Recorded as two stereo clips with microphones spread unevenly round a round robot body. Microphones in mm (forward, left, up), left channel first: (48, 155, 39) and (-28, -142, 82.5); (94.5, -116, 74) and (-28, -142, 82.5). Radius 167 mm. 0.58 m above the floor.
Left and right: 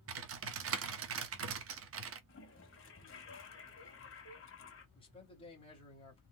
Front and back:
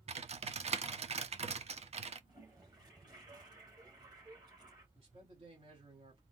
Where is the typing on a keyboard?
150° right, 1.0 m.